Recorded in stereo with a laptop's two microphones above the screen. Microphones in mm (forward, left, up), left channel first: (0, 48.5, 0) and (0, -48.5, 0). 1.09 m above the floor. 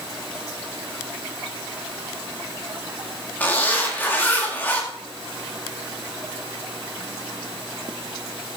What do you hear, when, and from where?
3.4 s a zipper: 20° left (ahead or behind), 2 m